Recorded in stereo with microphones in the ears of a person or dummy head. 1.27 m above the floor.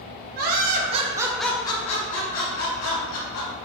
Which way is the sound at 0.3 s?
55° right (ahead or behind).